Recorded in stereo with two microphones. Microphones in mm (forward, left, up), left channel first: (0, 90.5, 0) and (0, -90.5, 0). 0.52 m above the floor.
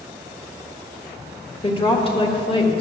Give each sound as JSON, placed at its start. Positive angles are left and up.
{"t": 1.6, "sound": "a woman speaking", "side_deg": 30, "distance_m": 1.5}